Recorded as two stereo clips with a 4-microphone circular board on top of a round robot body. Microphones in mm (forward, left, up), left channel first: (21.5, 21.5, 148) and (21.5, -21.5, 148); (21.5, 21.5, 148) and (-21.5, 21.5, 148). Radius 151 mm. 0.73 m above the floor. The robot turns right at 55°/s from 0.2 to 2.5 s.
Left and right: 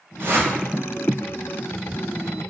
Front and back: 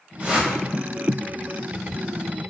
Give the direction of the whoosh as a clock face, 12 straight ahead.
4 o'clock.